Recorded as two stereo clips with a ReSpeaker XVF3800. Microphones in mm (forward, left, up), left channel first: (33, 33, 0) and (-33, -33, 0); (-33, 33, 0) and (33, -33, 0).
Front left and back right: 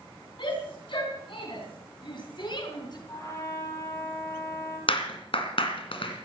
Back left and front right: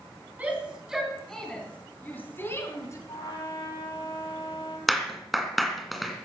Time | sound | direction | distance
0.4 | a shout | 25° left | 3.5 m
3.1 | a trumpet | 100° left | 7 m
4.9 | a clap | 45° left | 2.5 m